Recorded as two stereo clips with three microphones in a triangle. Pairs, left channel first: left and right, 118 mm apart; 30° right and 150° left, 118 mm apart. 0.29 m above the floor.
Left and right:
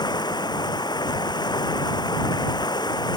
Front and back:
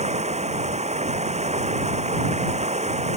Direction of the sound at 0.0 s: 140° left.